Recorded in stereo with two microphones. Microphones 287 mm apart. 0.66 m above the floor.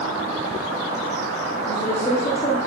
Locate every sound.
1.6 s a woman speaking: 30° left (ahead or behind), 2 m